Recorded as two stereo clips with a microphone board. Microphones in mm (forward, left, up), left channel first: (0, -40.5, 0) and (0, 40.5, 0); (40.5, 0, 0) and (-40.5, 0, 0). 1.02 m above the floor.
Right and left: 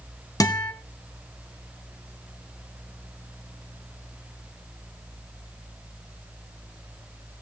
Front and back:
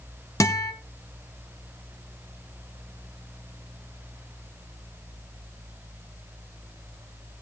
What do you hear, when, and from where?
0.4 s a guitar: 50° right, 1.9 m